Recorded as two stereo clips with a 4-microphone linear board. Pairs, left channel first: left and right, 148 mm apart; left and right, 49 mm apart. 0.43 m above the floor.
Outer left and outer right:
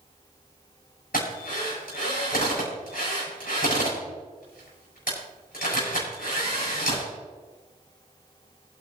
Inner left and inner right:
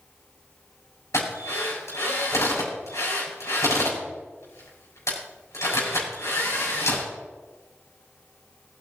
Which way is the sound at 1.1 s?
80° left.